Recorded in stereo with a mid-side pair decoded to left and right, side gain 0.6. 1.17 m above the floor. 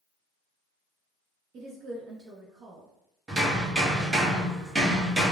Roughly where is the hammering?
Ahead.